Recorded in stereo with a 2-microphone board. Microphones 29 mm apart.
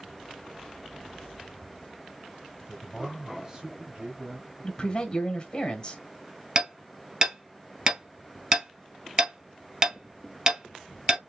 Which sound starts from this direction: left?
A man speaking, at 4.6 s.